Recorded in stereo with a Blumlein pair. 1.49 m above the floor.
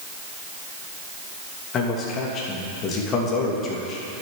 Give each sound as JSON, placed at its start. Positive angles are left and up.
{"t": 1.7, "sound": "a man speaking", "azimuth_deg": 30, "distance_m": 2.5}